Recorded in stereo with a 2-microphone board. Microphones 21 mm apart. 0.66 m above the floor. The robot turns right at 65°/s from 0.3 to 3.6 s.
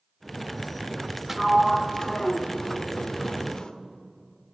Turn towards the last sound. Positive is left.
turn(degrees=135)